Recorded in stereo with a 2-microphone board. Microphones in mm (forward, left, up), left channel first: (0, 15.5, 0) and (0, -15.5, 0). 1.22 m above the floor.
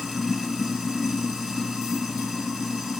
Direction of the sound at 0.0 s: 15° right (ahead or behind).